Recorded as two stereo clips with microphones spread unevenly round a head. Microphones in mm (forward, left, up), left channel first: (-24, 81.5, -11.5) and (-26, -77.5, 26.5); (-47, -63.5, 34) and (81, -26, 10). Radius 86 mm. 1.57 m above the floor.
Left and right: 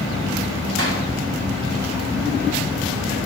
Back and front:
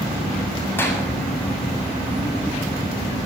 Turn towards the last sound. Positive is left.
turn(degrees=-90)